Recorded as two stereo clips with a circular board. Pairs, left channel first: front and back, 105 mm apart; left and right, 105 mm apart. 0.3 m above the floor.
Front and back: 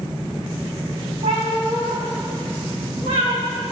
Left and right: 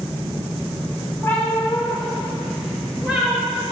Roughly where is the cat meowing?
Behind.